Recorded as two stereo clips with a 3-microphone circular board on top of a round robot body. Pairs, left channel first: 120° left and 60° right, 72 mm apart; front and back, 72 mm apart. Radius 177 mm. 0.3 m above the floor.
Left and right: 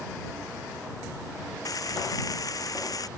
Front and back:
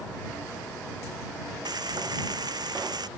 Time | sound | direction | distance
1.6 | frying | 160° left | ?